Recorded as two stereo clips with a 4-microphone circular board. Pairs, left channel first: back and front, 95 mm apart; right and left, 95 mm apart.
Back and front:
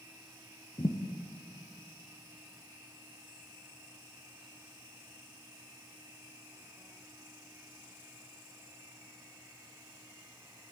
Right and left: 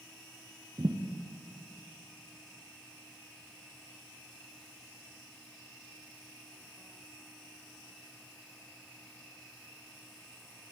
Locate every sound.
0.8 s a thud: 135° left, 3 m